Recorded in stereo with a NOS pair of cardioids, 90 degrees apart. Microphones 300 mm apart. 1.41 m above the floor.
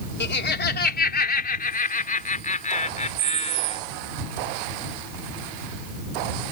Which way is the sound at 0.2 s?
35° left.